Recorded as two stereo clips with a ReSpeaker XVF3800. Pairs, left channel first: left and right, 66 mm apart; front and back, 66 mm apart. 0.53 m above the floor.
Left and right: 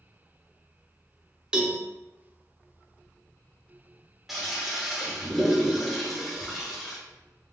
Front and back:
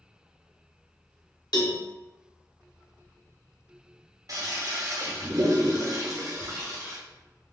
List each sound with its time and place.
1.5 s a cowbell: 10° right, 0.6 m
4.3 s a toilet flushing: 175° right, 0.9 m